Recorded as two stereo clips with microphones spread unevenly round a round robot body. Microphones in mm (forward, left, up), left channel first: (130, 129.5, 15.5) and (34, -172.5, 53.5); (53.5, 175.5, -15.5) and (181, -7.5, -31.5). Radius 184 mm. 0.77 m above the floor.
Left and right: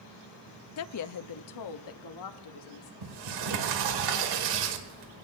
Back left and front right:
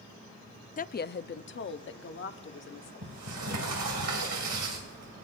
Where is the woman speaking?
70° left, 0.5 m; by 2.9 s 95° left, 1.8 m.